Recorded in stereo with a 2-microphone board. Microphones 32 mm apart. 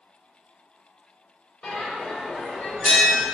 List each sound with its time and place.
1.6 s a bell: 45° left (ahead or behind), 1.3 m